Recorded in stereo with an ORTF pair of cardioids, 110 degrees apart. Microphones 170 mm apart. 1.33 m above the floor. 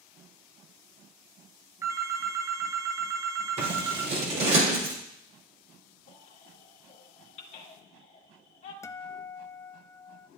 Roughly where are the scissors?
Ahead right.